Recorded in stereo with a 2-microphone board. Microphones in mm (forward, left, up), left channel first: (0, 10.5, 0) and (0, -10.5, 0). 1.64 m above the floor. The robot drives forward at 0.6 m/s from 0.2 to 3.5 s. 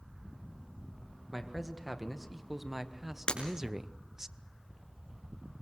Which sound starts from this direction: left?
Breaking glass, at 3.3 s.